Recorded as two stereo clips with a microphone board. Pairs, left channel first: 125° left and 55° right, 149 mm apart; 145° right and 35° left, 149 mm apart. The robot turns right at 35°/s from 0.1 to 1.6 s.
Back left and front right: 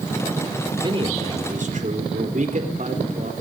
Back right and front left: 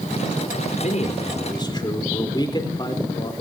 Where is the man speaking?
110° right, 4 m; by 3.3 s 85° right, 4 m.